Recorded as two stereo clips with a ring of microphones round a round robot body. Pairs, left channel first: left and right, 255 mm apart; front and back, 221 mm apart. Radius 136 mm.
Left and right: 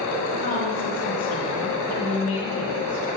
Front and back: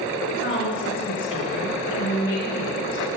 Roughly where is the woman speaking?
Ahead left.